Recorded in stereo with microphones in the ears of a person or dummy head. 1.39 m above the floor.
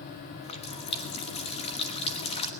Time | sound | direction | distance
0.4 | a running tap | 35° left (ahead or behind) | 1.2 m